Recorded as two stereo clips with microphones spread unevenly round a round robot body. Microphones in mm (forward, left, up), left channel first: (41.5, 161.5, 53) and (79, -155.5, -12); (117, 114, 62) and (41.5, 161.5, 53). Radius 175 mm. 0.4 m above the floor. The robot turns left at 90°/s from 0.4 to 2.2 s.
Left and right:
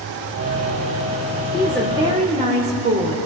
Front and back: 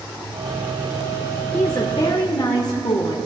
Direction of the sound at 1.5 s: 15° left.